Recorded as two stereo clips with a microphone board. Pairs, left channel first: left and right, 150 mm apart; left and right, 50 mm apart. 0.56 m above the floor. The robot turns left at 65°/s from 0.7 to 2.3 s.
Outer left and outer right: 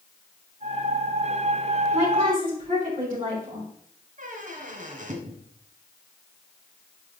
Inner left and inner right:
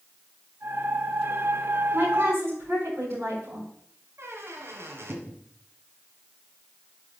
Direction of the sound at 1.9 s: 35° right (ahead or behind).